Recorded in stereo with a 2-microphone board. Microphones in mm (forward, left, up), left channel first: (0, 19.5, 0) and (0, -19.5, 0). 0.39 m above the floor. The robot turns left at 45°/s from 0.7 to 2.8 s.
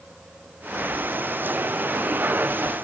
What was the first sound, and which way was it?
Only background noise.